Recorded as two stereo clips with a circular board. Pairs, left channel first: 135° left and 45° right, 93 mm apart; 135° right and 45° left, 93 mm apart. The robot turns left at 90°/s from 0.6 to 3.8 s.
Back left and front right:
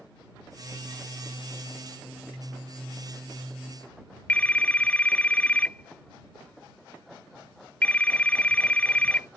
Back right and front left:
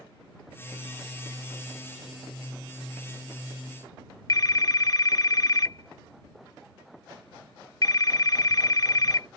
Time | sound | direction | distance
4.3 | a phone ringing | 155° right | ?